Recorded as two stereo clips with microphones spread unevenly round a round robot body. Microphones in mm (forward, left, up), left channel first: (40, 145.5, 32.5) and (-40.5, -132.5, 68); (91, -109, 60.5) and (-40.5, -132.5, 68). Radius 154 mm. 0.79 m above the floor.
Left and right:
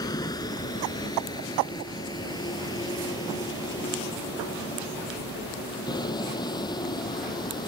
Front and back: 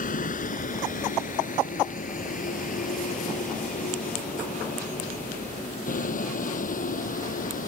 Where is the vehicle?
5° right.